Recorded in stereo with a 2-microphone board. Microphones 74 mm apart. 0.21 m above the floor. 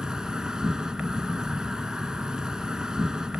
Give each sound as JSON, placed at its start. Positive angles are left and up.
{"t": 0.0, "sound": "an insect", "side_deg": -10, "distance_m": 0.9}